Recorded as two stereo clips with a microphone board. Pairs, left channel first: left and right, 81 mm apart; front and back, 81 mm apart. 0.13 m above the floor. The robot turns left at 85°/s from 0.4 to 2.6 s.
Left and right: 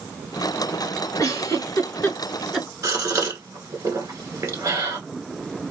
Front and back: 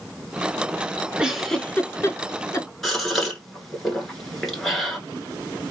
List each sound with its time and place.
1.2 s a giggle: 110° left, 0.6 m; by 2.7 s 10° right, 0.6 m
2.8 s a gasp: 85° right, 1.2 m